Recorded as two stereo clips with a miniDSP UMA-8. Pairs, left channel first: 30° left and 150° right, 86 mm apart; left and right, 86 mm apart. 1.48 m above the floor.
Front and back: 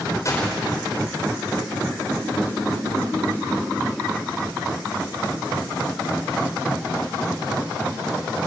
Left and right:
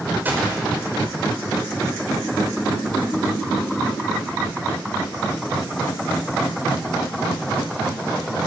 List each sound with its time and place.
0.2 s a gunshot: 20° right, 5.5 m